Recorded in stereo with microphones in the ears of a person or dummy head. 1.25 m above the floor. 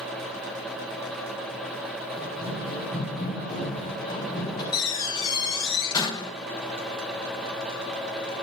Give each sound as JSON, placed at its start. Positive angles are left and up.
{"t": 2.2, "sound": "running footsteps", "side_deg": 40, "distance_m": 8.0}
{"t": 4.7, "sound": "a door slam", "side_deg": 30, "distance_m": 1.2}